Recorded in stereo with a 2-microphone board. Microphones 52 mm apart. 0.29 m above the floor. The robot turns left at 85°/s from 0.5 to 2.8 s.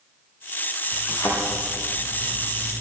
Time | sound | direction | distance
1.1 | a thud | 65° left (ahead or behind) | 8 m